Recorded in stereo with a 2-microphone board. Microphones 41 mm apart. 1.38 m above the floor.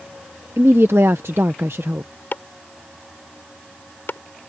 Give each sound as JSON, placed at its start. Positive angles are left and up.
{"t": 0.6, "sound": "a woman speaking", "side_deg": -75}
{"t": 2.3, "sound": "chopping", "side_deg": 55}